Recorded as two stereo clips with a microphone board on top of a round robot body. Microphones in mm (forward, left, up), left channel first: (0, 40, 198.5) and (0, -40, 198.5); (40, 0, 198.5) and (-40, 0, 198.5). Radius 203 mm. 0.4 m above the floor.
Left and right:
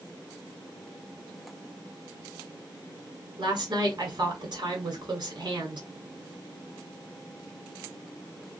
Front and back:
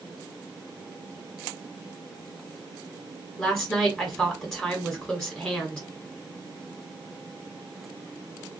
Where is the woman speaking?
75° right, 1.9 m.